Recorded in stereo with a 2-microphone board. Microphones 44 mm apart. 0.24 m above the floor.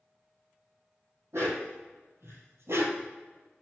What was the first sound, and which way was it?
A dog barking, 85° right.